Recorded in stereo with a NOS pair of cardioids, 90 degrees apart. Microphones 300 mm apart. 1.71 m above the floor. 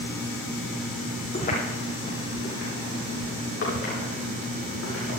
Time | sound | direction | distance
1.3 | footsteps | 30° left | 8.5 m